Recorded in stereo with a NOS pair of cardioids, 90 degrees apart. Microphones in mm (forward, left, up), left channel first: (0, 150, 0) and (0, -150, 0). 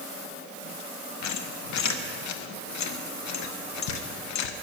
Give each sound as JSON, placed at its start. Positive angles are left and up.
{"t": 1.2, "sound": "a squeak", "azimuth_deg": 70, "distance_m": 0.9}